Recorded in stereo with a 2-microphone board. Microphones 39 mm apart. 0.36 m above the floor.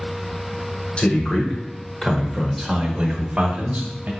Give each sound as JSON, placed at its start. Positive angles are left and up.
{"t": 1.0, "sound": "a man speaking", "side_deg": 30, "distance_m": 1.4}